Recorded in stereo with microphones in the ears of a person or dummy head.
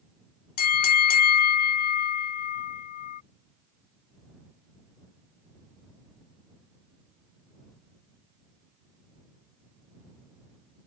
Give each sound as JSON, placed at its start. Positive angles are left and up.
{"t": 0.6, "sound": "a bell", "side_deg": 50}